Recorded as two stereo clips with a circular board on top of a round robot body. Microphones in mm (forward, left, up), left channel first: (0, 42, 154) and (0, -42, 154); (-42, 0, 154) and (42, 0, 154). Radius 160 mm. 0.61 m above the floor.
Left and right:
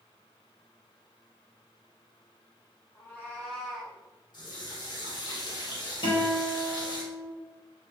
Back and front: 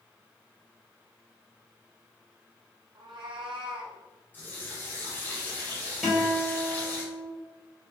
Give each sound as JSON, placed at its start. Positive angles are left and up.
{"t": 3.0, "sound": "a cat meowing", "azimuth_deg": 35, "distance_m": 1.1}
{"t": 4.3, "sound": "a running tap", "azimuth_deg": 115, "distance_m": 2.5}
{"t": 6.0, "sound": "a guitar", "azimuth_deg": 85, "distance_m": 2.5}